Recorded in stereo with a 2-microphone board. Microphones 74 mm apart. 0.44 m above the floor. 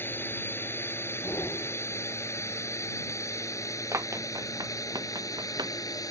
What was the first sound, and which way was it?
A drone, 30° left (ahead or behind).